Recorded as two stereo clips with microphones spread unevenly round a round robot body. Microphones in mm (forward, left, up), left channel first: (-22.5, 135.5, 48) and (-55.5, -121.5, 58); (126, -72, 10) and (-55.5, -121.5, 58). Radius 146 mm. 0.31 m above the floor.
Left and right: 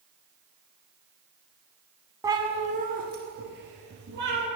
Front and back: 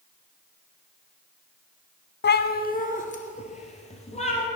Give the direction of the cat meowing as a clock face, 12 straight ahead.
1 o'clock.